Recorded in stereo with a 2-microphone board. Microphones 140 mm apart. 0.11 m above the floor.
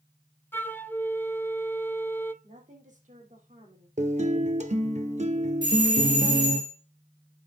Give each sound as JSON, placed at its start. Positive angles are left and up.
{"t": 0.5, "sound": "a flute", "side_deg": 15, "distance_m": 0.8}
{"t": 2.4, "sound": "a woman speaking", "side_deg": -65, "distance_m": 4.0}
{"t": 4.0, "sound": "a guitar", "side_deg": -55, "distance_m": 1.2}
{"t": 5.6, "sound": "a doorbell", "side_deg": -35, "distance_m": 2.5}